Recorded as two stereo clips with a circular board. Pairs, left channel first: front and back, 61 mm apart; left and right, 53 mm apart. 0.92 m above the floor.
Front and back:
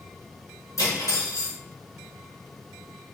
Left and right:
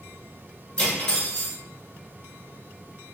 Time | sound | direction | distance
0.8 | cutlery clinking | 20° left | 1.4 m